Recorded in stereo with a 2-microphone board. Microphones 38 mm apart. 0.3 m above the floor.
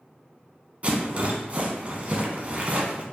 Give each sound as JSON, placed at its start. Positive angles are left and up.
{"t": 0.8, "sound": "a rattle", "side_deg": -40, "distance_m": 0.9}